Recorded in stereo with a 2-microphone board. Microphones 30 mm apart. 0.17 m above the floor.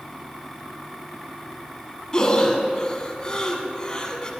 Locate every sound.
2.1 s breathing: 25° left (ahead or behind), 1.2 m